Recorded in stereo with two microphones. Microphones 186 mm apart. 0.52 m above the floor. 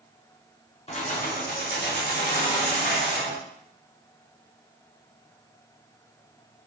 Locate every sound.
0.9 s keys jangling: 35° left (ahead or behind), 0.6 m; by 3.4 s 60° left (ahead or behind), 1.5 m